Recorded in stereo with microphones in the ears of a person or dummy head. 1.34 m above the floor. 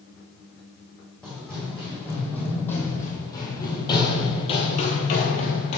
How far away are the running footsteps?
About 3.5 m.